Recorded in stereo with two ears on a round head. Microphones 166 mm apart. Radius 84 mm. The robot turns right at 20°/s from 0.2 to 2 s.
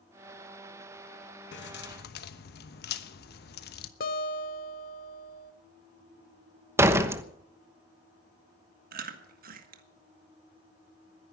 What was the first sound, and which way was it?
Keys jangling, 70° left (ahead or behind).